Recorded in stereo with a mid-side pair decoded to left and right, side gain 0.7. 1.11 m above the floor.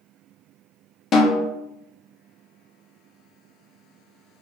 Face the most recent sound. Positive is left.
turn(degrees=30)